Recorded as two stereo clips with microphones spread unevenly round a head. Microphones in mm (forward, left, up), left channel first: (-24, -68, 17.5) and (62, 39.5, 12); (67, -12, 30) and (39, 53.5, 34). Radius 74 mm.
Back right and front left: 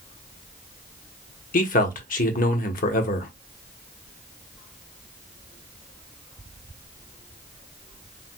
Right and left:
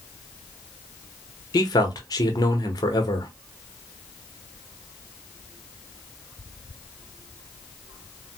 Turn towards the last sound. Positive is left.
turn(degrees=-105)